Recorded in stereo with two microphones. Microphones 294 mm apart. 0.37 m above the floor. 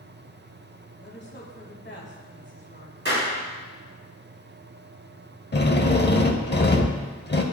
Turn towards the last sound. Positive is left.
turn(degrees=35)  # may be behind; listen again after turning